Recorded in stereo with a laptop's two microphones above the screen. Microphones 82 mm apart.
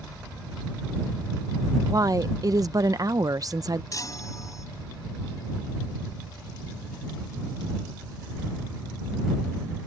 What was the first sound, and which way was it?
A woman speaking, 45° right (ahead or behind).